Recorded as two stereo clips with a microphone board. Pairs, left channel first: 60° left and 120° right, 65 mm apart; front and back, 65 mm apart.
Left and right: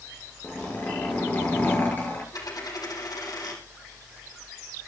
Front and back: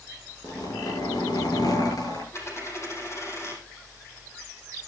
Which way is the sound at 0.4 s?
Straight ahead.